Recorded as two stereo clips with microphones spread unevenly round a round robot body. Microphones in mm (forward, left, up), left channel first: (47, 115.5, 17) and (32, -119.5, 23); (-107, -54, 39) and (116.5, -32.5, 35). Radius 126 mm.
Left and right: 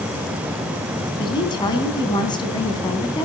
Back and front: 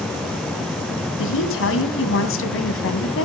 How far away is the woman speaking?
About 3 m.